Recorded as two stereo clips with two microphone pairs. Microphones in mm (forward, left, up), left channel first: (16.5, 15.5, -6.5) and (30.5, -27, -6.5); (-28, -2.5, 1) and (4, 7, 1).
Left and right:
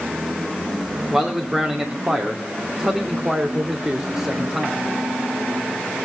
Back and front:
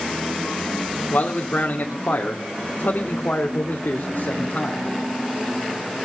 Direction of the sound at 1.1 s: 145° right.